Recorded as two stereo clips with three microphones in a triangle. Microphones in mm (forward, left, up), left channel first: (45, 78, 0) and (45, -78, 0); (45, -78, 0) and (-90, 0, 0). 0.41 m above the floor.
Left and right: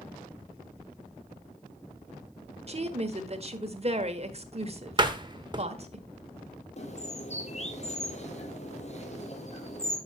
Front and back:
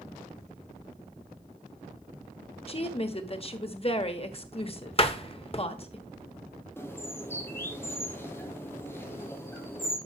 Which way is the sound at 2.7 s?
65° right.